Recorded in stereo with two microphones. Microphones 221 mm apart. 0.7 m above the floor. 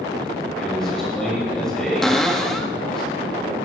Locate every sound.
0.6 s a man speaking: 5° left (ahead or behind), 3 m
2.0 s a cupboard door: centre (ahead or behind), 0.9 m